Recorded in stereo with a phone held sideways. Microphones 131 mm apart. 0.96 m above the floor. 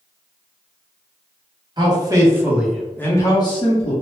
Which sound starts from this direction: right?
A man speaking, at 1.8 s.